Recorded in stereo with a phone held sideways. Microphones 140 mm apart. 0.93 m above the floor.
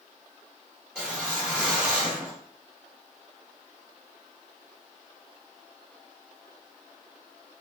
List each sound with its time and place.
0.9 s a whoosh: 5° right (ahead or behind), 1.7 m